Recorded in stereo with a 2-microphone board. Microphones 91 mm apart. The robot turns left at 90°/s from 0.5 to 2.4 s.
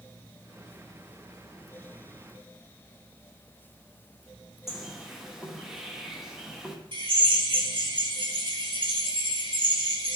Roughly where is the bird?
Centre.